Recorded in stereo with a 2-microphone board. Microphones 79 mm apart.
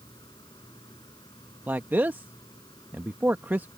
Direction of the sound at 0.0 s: 75° left (ahead or behind).